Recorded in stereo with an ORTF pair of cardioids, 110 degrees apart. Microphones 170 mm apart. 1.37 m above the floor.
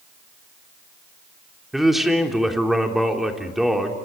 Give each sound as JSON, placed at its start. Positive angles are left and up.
{"t": 1.7, "sound": "a man speaking", "azimuth_deg": 0, "distance_m": 3.5}